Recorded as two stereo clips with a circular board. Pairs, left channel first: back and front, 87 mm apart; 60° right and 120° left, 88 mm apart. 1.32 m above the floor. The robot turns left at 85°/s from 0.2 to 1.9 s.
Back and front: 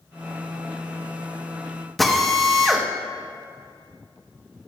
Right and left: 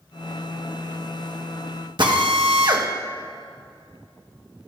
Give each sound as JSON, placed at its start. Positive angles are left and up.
{"t": 2.0, "sound": "a drill", "azimuth_deg": 90, "distance_m": 1.3}